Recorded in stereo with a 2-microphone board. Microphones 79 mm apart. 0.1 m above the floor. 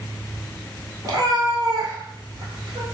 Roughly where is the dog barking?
No dog barking in this recording.